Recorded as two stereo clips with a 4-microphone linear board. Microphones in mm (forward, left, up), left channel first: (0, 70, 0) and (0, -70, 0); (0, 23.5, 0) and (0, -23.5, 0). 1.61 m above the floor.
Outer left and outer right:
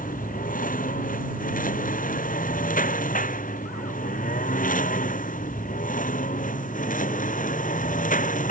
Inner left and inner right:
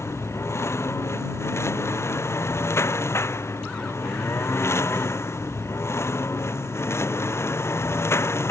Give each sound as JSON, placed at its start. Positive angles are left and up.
{"t": 0.0, "sound": "a lawn mower", "side_deg": 75}